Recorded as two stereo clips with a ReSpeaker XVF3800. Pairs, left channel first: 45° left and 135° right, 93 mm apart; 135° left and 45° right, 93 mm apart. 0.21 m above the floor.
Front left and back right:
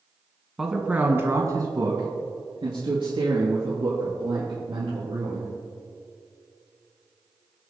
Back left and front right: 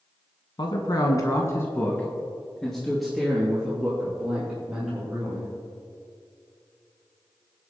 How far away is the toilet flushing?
I don't hear a toilet flushing.